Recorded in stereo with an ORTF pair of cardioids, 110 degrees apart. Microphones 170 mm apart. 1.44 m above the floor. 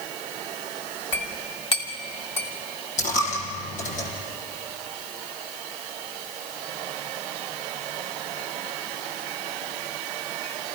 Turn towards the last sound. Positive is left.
turn(degrees=50)